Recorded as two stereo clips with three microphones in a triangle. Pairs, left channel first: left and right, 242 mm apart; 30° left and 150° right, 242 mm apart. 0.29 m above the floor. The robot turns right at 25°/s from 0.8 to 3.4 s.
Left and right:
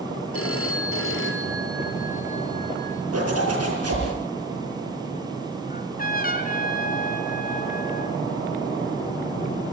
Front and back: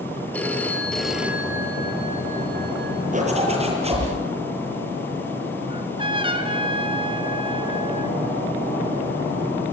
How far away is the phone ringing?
About 3.5 m.